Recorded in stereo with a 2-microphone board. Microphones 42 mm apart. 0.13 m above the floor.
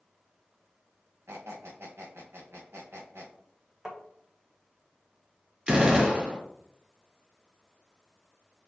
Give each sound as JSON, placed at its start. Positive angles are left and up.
{"t": 1.3, "sound": "a squeak", "side_deg": -70, "distance_m": 1.8}
{"t": 3.9, "sound": "tapping", "side_deg": -15, "distance_m": 1.2}
{"t": 5.7, "sound": "a gunshot", "side_deg": -25, "distance_m": 1.7}